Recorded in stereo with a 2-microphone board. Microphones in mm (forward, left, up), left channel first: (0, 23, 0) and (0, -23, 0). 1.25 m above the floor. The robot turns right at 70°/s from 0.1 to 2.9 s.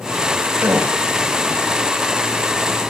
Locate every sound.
0.6 s a gasp: 85° right, 6 m; by 1.0 s 70° right (ahead or behind), 6 m